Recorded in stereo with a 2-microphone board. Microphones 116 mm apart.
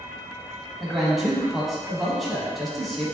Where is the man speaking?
Centre (ahead or behind), 1.3 m.